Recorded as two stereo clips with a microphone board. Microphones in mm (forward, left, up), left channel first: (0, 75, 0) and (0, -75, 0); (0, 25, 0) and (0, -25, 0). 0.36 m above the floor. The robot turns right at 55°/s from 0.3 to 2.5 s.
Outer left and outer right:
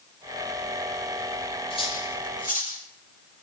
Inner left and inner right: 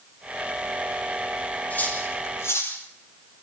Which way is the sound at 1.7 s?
35° left (ahead or behind).